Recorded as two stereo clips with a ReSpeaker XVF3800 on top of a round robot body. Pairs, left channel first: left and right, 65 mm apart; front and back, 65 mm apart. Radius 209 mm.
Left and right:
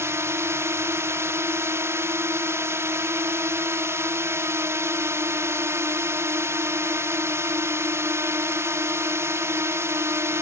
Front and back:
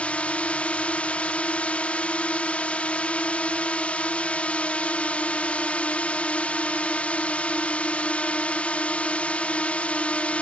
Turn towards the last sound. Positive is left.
turn(degrees=-65)